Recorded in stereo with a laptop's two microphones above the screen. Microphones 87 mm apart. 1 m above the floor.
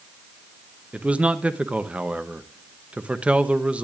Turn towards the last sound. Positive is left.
turn(degrees=-15)  # may be behind; listen again after turning